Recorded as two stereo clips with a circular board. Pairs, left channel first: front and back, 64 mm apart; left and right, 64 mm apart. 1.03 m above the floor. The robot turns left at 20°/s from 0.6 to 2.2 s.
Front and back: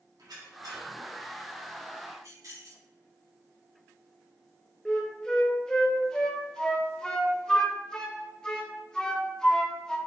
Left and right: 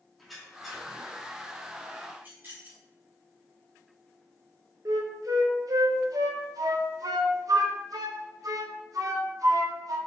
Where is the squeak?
Straight behind, 1.7 m; by 0.9 s 170° left, 1.7 m.